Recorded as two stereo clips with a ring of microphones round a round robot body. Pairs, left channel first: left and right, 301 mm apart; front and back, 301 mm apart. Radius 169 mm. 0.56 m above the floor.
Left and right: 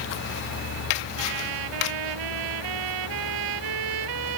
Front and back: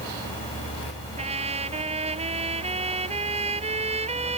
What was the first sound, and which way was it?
A trumpet, 110° right.